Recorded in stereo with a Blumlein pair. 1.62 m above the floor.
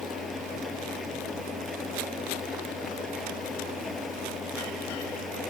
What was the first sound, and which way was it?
An engine running, 15° left.